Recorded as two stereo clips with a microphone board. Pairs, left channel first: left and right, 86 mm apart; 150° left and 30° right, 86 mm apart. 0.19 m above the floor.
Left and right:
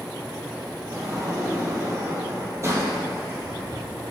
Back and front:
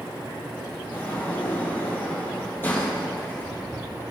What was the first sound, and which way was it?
A sliding door, 145° right.